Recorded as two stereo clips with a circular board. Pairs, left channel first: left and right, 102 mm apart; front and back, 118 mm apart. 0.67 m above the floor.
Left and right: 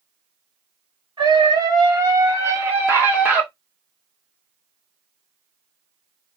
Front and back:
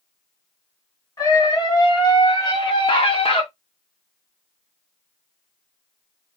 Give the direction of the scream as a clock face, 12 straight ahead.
2 o'clock.